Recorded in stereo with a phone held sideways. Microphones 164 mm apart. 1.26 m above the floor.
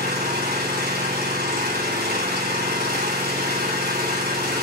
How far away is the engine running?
About 3.5 m.